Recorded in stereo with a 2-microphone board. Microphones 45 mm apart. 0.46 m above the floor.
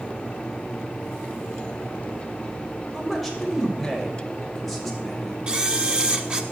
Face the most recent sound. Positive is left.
turn(degrees=-25)  # may be behind; listen again after turning